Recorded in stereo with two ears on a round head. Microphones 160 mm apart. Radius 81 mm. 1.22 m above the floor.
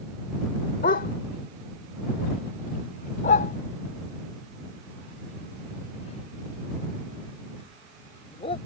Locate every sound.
0.8 s a dog barking: 45° left (ahead or behind); by 8.6 s 35° left (ahead or behind)